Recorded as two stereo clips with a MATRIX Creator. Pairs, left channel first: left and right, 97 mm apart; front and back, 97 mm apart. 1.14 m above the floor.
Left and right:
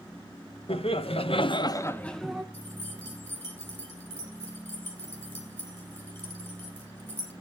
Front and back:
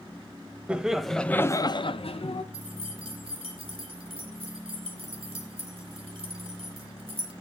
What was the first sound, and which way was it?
Laughter, 100° left.